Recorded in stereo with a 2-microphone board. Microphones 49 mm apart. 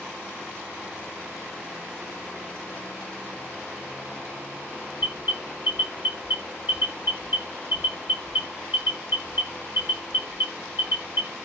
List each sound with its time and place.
5.0 s an alarm: 45° right (ahead or behind), 1.3 m